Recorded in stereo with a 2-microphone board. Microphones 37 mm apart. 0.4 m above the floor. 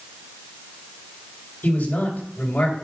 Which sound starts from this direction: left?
A man speaking, at 1.6 s.